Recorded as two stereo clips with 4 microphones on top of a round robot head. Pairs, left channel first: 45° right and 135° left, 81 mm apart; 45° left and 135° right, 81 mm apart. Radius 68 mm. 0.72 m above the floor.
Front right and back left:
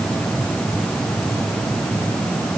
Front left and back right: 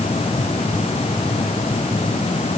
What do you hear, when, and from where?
Only background noise.